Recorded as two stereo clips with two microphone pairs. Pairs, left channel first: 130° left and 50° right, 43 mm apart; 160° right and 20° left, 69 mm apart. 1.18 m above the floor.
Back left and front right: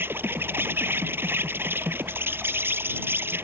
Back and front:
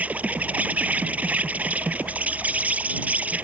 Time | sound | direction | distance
0.0 | an insect | 45° right | ?